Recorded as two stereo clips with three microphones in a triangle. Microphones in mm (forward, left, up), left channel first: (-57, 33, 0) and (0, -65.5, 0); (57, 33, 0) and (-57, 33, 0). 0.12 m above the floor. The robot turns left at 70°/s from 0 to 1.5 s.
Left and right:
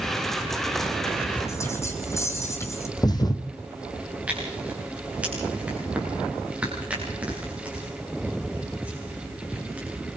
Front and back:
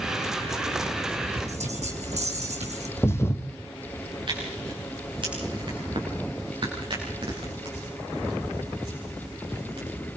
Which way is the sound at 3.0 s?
65° left.